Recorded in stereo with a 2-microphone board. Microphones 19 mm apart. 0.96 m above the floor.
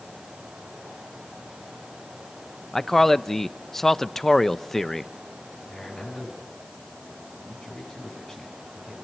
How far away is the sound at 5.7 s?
About 9.5 m.